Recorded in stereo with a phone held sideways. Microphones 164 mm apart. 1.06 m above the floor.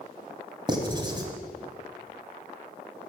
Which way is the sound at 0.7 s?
25° right (ahead or behind).